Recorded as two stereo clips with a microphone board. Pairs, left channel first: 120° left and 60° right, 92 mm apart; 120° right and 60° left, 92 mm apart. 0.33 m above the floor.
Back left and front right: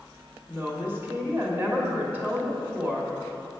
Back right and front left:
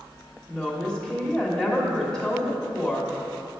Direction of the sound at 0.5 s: 60° right.